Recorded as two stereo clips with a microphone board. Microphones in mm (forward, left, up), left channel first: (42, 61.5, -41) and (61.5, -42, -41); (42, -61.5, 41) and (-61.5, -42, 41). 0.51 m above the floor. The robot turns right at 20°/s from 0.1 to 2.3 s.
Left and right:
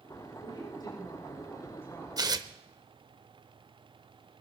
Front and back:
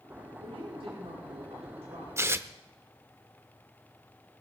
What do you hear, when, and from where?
0.4 s a woman speaking: 140° left, 7 m; by 2.1 s 175° left, 7 m
2.2 s tearing paper: 125° right, 0.8 m; by 2.5 s 120° right, 0.8 m